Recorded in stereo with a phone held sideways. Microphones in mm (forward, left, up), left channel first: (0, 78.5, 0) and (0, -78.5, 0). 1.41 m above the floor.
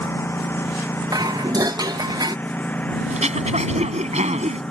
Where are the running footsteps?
No running footsteps in this recording.